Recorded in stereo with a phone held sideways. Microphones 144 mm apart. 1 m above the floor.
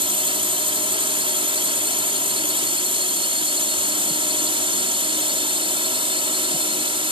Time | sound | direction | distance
0.0 | a drone | 35° right (ahead or behind) | ?